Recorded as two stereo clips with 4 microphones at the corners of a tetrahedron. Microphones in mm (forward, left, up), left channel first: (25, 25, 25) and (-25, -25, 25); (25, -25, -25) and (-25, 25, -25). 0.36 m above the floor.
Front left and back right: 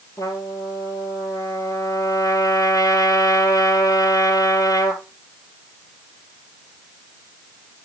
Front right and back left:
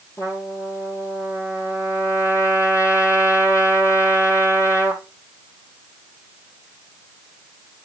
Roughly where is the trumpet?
Ahead.